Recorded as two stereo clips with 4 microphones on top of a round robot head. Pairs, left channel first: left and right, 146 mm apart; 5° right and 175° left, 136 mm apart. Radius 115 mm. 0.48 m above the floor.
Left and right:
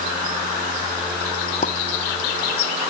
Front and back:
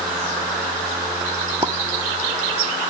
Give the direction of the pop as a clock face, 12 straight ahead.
8 o'clock.